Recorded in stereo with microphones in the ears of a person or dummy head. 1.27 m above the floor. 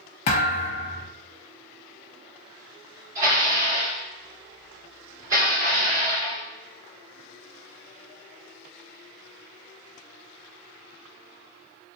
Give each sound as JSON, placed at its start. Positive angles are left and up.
{"t": 0.3, "sound": "a thud", "side_deg": 35, "distance_m": 0.8}
{"t": 3.1, "sound": "dishes clattering", "side_deg": -20, "distance_m": 2.0}